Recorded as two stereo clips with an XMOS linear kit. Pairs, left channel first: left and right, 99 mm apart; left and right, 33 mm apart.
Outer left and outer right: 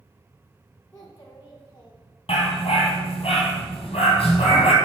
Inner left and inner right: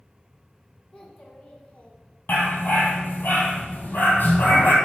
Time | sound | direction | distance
0.9 | a child speaking | 20° left (ahead or behind) | 1.2 m
2.3 | a dog barking | 80° left | 2 m